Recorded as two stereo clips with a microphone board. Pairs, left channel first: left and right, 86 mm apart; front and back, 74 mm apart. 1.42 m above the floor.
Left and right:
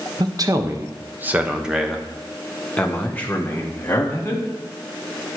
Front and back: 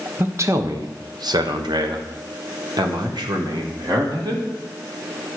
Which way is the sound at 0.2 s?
125° right.